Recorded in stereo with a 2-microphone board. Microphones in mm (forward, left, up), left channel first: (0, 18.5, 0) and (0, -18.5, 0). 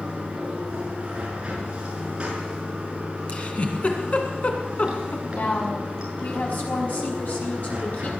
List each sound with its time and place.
0.0 s running water: 30° right (ahead or behind), 6 m
3.3 s a giggle: 40° left (ahead or behind), 2.5 m
5.3 s a woman speaking: 55° left (ahead or behind), 5 m